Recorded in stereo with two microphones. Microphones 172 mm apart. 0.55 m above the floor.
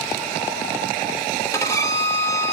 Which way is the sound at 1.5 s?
20° left (ahead or behind).